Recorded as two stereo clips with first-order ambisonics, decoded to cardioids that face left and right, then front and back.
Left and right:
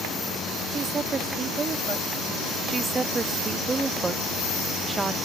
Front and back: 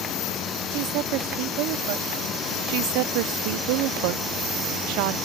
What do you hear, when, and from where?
0.7 s a woman speaking: 160° right
2.7 s a woman speaking: 170° right